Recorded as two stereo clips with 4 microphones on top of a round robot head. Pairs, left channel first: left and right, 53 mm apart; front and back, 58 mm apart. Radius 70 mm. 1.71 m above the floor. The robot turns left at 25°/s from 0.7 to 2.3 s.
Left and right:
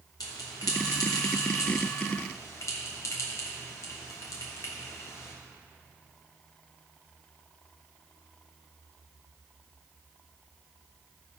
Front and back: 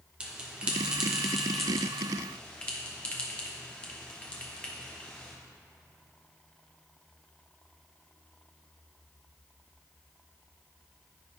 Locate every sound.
0.2 s a bell: 110° left, 0.8 m; by 5.3 s 70° left, 0.8 m